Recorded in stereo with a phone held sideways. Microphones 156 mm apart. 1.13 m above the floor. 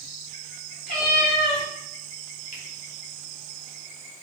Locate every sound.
0.9 s a cat meowing: 80° left, 2.0 m
2.5 s a finger snap: 55° left (ahead or behind), 1.2 m